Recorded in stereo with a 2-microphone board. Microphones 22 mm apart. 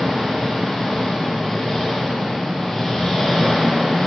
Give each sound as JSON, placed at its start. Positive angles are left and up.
{"t": 0.0, "sound": "an engine running", "side_deg": 25, "distance_m": 1.4}